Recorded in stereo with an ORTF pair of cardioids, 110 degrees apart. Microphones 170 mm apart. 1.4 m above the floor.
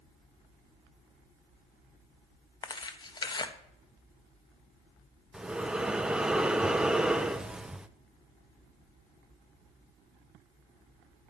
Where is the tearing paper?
25° left, 1.2 m.